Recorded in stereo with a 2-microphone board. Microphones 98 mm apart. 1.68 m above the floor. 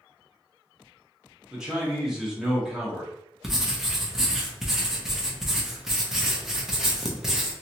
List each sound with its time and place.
1.5 s a man speaking: 5° right (ahead or behind), 1.3 m
3.4 s writing: 5° right (ahead or behind), 0.7 m